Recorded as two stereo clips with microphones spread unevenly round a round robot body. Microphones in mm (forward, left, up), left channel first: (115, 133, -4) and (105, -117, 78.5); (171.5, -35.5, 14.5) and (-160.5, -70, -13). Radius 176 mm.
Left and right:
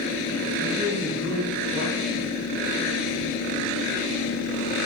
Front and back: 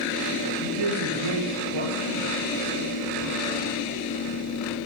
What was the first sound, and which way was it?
A man speaking, 170° right.